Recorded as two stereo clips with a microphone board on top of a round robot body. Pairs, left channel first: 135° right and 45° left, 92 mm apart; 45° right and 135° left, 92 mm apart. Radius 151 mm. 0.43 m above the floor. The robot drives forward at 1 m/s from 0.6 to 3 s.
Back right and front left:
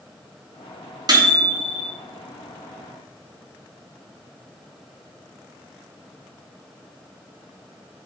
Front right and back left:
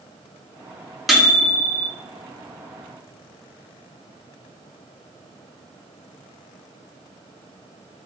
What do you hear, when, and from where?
1.1 s a microwave: 45° left, 1.4 m; by 1.9 s 100° left, 1.2 m